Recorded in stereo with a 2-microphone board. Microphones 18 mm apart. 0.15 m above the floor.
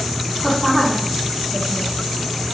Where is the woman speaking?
5° right (ahead or behind), 3.5 m; by 1.9 s 20° right (ahead or behind), 4 m.